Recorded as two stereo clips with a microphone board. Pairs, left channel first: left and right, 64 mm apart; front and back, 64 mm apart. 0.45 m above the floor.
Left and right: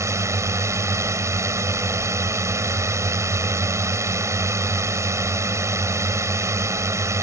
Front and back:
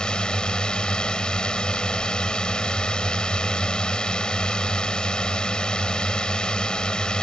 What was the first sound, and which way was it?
A drone, 75° right.